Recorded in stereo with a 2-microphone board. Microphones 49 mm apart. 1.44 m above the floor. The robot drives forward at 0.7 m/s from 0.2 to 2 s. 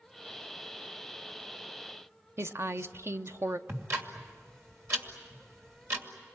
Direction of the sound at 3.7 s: 55° right (ahead or behind).